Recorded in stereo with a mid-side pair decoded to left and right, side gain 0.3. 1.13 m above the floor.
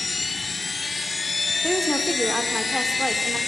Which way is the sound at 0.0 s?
45° left.